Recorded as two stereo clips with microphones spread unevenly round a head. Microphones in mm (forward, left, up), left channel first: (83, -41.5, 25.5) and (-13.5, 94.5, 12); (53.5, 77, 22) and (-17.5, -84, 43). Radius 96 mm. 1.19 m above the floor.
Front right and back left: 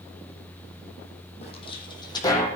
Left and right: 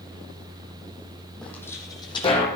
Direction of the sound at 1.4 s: 25° right.